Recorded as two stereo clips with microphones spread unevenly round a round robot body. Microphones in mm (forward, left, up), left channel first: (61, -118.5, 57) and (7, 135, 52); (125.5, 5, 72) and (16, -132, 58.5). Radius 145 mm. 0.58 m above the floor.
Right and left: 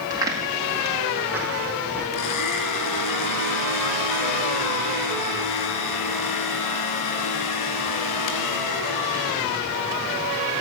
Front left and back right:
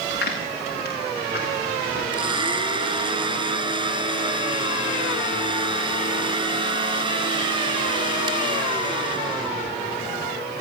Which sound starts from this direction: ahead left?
Footsteps, at 0.1 s.